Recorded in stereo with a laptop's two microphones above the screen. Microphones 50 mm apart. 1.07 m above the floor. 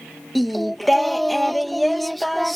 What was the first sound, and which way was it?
Singing, centre (ahead or behind).